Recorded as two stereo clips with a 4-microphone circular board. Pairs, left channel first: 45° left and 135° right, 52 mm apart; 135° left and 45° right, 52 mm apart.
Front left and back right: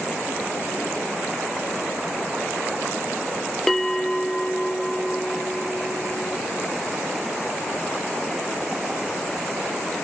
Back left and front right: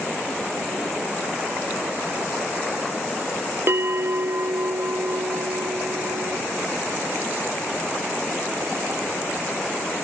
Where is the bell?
35° right, 0.5 m.